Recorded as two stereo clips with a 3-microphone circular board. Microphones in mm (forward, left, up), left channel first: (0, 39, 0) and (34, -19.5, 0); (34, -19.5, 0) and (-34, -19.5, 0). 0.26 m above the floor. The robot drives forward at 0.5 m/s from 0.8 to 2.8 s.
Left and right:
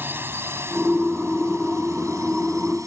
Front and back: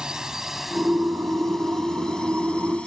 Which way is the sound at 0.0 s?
105° right.